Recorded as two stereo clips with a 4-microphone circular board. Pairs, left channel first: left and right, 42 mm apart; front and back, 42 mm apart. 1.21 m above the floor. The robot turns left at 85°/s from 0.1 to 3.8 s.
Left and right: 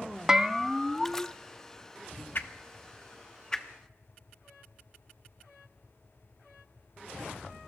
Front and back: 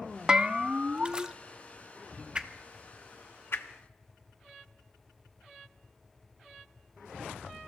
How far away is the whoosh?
About 1.1 m.